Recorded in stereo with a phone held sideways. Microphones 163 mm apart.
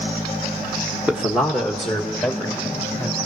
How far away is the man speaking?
About 1.0 m.